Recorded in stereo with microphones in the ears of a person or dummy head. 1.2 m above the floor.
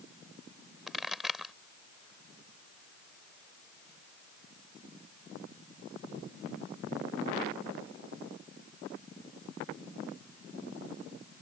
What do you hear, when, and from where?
0.9 s a pop: 5° right (ahead or behind)